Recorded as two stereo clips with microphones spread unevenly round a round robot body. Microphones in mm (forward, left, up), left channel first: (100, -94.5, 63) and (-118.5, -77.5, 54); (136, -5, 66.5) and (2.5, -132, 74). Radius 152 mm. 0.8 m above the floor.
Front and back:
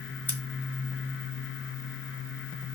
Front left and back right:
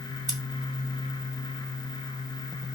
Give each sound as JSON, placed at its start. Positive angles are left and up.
{"t": 0.3, "sound": "scissors", "azimuth_deg": -85, "distance_m": 2.0}